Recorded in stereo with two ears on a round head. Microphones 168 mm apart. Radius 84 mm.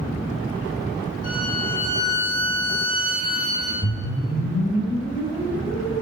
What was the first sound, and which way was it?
A violin, 50° left (ahead or behind).